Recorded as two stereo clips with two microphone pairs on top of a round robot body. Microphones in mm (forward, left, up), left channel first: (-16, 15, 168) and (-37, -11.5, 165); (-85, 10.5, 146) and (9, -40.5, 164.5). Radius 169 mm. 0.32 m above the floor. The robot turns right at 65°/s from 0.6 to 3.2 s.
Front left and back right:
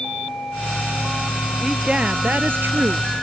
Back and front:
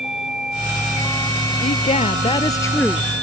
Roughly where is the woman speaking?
Behind left.